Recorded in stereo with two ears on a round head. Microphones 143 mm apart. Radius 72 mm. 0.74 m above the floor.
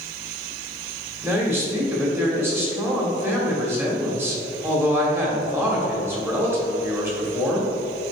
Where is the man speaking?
15° right (ahead or behind), 1.6 m.